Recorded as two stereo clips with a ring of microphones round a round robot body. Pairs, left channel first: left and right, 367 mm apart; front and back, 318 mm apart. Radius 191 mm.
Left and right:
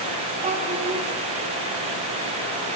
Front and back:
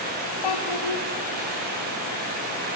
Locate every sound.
0.4 s a child speaking: 20° right, 1.1 m